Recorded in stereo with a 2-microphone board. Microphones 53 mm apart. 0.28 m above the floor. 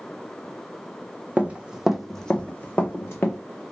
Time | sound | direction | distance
1.4 | running footsteps | 30° right (ahead or behind) | 0.6 m